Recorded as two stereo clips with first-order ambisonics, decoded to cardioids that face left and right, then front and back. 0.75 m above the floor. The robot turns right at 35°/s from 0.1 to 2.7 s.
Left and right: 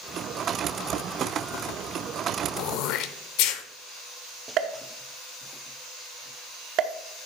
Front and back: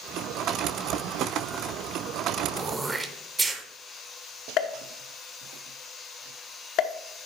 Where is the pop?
45° right, 0.6 m.